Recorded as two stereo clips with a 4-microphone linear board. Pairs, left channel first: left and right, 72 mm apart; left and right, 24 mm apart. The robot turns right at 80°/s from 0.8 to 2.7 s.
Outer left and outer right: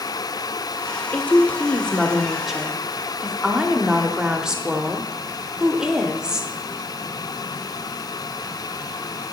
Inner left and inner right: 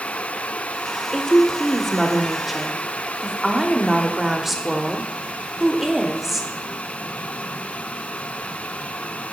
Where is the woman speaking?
20° left (ahead or behind), 0.7 m; by 6.5 s 10° right (ahead or behind), 0.7 m.